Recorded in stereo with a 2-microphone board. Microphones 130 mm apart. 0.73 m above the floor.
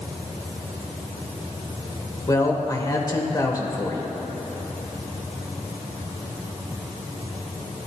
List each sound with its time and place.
2.3 s a woman speaking: 30° left (ahead or behind), 2.5 m